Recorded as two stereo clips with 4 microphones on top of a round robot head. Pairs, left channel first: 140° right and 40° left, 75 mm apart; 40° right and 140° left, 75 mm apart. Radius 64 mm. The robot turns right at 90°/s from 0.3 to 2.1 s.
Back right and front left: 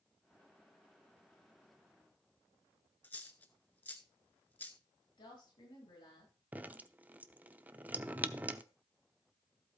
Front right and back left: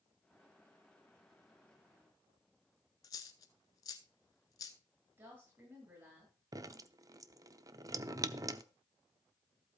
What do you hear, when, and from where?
3.0 s a dropped coin: 75° right, 0.6 m
5.2 s a woman speaking: 165° right, 8.5 m
6.5 s dripping: 105° left, 0.7 m